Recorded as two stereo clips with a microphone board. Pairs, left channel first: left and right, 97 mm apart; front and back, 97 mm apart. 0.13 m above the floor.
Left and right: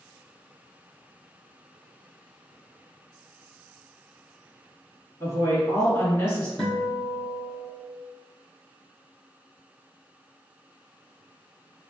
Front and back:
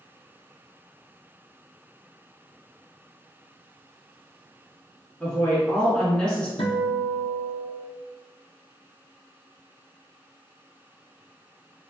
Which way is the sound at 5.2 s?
70° left.